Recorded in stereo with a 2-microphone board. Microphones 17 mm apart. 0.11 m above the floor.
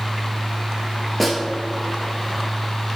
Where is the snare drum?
10° left (ahead or behind), 1.6 m.